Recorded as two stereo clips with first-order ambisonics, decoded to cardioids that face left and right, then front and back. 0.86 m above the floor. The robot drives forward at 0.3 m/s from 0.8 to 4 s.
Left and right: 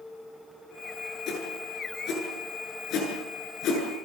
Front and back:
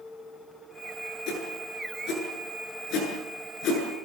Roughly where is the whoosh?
Ahead left.